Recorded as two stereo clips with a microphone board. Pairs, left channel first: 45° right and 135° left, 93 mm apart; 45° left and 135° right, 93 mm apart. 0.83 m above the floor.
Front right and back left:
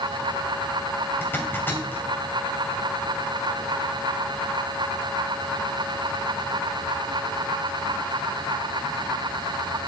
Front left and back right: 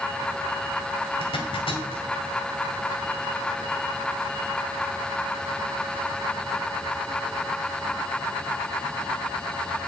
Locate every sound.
1.2 s a zipper: 25° left, 2.5 m